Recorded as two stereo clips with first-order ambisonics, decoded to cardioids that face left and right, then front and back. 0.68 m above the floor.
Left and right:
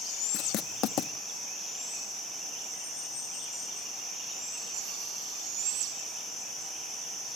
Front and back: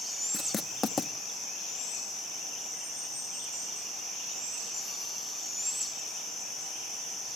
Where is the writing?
75° left, 0.7 m.